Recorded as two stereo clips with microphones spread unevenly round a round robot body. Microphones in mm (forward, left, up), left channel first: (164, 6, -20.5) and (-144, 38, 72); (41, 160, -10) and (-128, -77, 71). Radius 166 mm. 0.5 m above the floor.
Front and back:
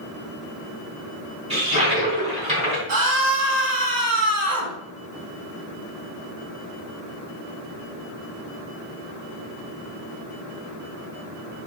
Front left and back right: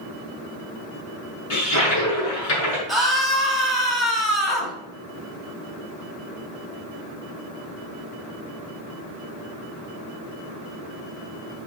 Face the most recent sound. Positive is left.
turn(degrees=140)